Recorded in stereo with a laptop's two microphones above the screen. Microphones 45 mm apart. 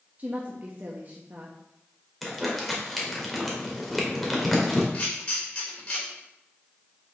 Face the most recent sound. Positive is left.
turn(degrees=30)  # may be behind; listen again after turning